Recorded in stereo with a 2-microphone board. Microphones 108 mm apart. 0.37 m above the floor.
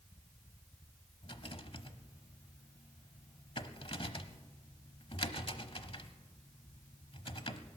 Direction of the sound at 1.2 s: 55° left (ahead or behind).